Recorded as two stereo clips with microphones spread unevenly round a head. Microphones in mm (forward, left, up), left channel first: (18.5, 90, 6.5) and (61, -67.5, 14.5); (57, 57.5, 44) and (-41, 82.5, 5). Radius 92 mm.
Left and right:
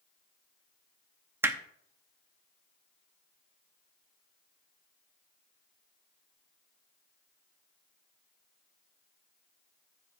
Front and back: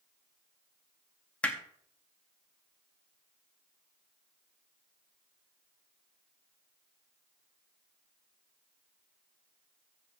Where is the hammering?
15° right, 0.7 m.